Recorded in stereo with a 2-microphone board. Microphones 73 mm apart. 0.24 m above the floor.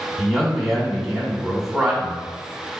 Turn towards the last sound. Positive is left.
turn(degrees=0)  # may be behind; listen again after turning